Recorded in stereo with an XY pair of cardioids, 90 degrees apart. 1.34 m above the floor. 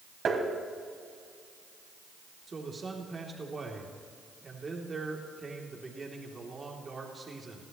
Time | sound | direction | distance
0.2 | tapping | 55° right | 3.5 m
2.5 | a man speaking | 30° right | 3 m